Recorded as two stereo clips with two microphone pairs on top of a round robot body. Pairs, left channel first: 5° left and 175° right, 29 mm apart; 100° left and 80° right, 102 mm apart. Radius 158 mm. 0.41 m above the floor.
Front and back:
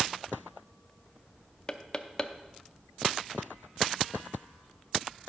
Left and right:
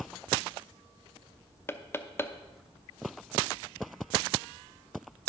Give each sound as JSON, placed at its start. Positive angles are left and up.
{"t": 1.7, "sound": "knocking", "azimuth_deg": 60, "distance_m": 0.9}